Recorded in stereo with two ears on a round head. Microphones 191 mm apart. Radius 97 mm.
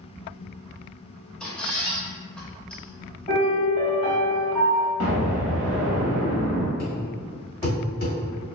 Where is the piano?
40° left (ahead or behind), 1.2 m.